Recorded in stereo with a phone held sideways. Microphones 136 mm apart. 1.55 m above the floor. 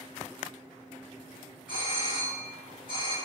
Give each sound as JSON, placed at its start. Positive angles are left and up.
{"t": 1.7, "sound": "a doorbell", "side_deg": 80, "distance_m": 1.7}